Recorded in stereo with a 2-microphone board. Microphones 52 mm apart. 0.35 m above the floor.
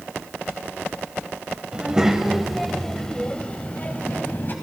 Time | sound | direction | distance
1.7 | a child speaking | 20° right (ahead or behind) | 1.4 m